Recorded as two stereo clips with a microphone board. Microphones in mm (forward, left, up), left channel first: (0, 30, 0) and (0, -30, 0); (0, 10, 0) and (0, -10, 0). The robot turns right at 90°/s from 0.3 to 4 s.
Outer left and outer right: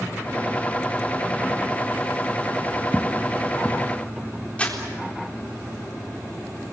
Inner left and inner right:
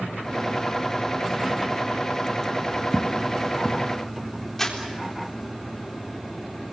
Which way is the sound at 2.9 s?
25° left (ahead or behind).